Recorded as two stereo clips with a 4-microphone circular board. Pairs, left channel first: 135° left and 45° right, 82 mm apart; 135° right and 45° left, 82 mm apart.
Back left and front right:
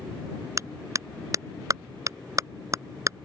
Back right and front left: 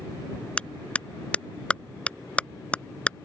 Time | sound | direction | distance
0.6 | a clap | 65° right | ?